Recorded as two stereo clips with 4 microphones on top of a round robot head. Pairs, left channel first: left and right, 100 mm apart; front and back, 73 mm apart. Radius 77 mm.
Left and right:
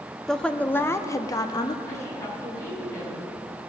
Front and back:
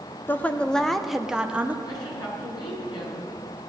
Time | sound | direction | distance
0.3 | a woman speaking | 10° left | 0.8 m
1.9 | a woman speaking | 30° left | 5 m